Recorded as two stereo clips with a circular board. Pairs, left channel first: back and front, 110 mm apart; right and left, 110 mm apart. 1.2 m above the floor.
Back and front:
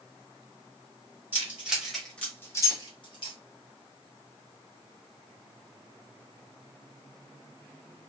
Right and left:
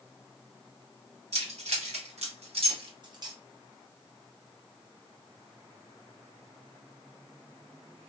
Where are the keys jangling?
75° left, 1.3 m; by 3.4 s 145° left, 1.1 m.